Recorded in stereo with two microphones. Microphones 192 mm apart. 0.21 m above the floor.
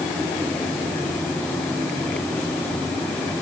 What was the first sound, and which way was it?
Only background noise.